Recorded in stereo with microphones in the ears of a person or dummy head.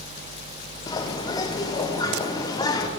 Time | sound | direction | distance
0.9 | a bird | 15° left (ahead or behind) | 0.6 m